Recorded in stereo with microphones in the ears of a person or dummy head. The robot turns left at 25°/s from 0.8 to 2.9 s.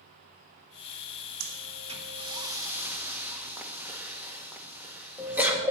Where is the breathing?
45° right (ahead or behind), 1.1 m; by 5.7 s 5° right (ahead or behind), 1.1 m.